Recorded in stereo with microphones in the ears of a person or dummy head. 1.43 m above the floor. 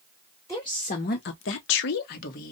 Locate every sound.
0.5 s a woman speaking: 20° left (ahead or behind), 0.8 m; by 2.5 s 45° left (ahead or behind), 1.1 m